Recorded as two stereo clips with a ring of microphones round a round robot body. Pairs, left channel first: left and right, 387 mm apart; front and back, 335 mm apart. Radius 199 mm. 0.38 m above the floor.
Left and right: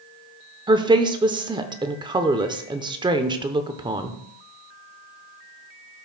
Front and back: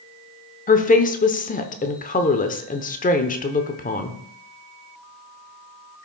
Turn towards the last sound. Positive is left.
turn(degrees=-25)